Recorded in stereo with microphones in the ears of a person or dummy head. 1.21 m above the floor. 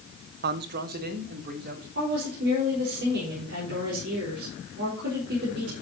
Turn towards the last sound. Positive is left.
turn(degrees=-60)  # may be behind; listen again after turning